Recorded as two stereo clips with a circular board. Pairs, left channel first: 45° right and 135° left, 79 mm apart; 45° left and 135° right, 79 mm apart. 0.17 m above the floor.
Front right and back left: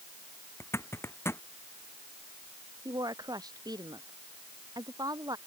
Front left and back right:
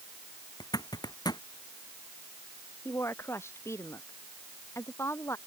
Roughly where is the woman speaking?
Left.